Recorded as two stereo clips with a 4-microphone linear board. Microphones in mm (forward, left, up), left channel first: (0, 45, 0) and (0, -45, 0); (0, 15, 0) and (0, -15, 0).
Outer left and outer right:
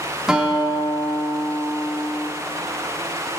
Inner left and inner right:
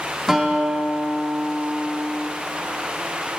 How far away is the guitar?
About 1.1 m.